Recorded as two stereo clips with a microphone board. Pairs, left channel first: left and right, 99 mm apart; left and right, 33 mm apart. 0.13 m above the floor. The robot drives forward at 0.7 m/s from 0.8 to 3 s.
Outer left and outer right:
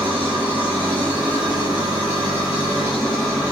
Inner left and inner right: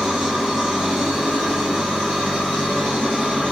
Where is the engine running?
15° right (ahead or behind), 3.5 m; by 3.5 s 10° right (ahead or behind), 5 m.